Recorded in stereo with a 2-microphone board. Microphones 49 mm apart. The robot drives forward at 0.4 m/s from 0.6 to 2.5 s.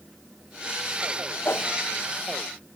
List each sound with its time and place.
1.4 s a whoosh: 55° left (ahead or behind), 0.8 m; by 1.8 s 50° left (ahead or behind), 0.9 m